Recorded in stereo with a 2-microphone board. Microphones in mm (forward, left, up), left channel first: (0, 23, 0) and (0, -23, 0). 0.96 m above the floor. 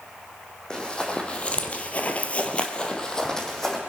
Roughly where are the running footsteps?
Centre.